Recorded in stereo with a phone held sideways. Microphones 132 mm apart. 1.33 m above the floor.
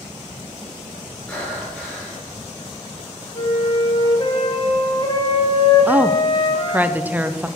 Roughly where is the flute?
Left.